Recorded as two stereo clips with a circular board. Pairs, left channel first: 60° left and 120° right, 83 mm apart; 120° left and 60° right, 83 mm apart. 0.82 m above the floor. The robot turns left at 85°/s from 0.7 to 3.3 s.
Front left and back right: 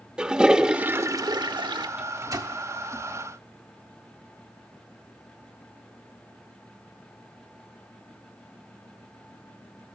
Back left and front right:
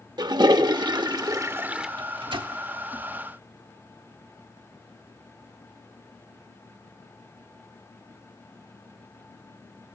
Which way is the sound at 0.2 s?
40° right.